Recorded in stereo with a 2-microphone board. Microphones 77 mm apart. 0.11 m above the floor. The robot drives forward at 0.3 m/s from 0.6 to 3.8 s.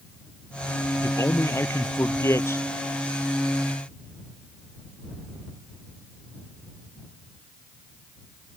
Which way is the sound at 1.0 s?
40° left (ahead or behind).